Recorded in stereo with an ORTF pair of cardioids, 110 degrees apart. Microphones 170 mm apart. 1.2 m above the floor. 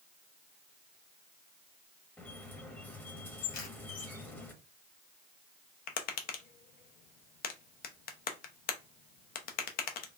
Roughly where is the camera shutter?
Ahead left.